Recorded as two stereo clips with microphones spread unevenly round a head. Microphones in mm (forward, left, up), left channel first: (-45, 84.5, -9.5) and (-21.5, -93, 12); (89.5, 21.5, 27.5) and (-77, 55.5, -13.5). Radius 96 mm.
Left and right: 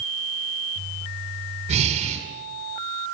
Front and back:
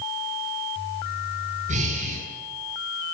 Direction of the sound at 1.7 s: 135° right.